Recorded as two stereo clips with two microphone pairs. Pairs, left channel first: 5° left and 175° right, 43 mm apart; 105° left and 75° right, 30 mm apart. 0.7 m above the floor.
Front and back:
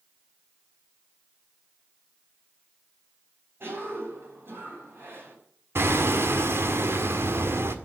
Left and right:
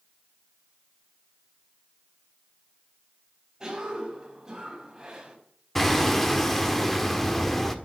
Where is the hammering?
Straight behind, 1.6 m.